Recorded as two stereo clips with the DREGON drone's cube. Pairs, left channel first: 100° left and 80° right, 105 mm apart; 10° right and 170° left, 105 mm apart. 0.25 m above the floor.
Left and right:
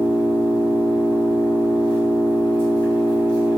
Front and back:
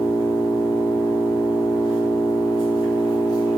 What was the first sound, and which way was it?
An engine running, 165° left.